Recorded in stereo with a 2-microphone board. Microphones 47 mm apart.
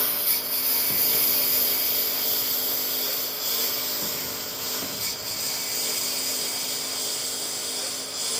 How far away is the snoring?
No snoring in this recording.